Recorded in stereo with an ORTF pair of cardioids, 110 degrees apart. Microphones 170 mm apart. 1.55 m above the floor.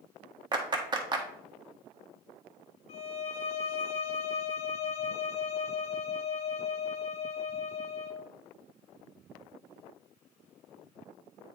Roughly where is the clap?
Ahead right.